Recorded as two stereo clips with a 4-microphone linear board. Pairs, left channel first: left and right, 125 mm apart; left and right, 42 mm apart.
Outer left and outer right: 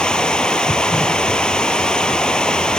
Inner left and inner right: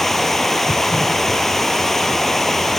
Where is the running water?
5° left (ahead or behind), 1.2 m.